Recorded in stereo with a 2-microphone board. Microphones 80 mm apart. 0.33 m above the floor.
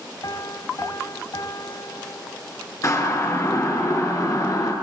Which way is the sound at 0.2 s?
50° left (ahead or behind).